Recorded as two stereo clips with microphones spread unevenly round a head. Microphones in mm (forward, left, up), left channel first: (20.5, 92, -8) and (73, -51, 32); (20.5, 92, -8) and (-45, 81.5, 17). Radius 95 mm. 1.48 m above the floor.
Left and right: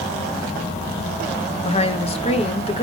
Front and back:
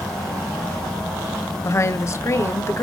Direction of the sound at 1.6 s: 60° left.